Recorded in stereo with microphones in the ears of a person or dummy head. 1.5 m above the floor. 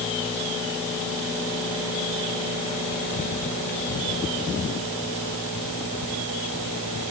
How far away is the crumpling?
No crumpling in this recording.